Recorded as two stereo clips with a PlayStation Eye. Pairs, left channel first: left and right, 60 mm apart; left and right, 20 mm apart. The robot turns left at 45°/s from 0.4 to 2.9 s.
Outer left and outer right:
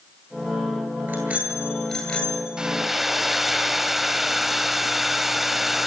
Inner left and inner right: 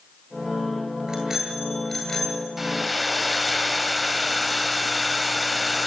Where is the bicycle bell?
140° right, 9 m; by 2.5 s 155° left, 9 m.